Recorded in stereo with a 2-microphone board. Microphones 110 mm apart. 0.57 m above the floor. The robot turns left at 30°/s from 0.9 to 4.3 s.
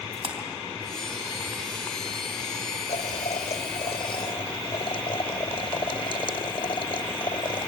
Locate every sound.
0.1 s a splash: 60° right (ahead or behind), 3 m
2.9 s boiling: 90° left, 0.8 m; by 7.7 s 45° left, 0.8 m